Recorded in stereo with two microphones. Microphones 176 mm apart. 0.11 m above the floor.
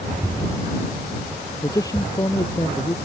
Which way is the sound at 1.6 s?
20° left (ahead or behind).